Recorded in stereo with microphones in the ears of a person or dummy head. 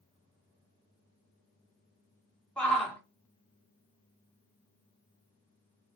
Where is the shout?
10° left (ahead or behind), 1.5 m.